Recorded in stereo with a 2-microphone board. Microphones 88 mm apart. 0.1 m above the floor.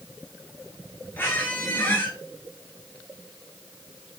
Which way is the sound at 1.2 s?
25° left (ahead or behind).